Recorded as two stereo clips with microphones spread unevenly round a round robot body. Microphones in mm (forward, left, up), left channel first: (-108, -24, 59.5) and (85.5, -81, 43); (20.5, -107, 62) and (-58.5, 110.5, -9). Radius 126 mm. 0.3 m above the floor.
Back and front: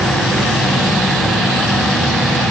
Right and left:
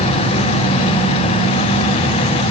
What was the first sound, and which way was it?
Only background noise.